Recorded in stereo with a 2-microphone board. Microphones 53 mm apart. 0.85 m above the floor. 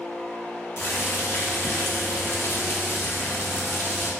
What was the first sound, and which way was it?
Boiling, 50° left (ahead or behind).